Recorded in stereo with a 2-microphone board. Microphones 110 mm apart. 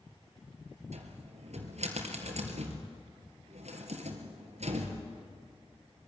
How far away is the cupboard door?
About 3 m.